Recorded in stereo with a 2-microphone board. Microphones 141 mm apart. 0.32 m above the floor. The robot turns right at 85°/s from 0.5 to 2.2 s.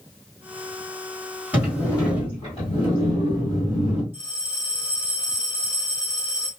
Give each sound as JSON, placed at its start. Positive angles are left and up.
{"t": 1.5, "sound": "a sliding door", "azimuth_deg": -15, "distance_m": 2.5}
{"t": 4.1, "sound": "a bell", "side_deg": 30, "distance_m": 4.0}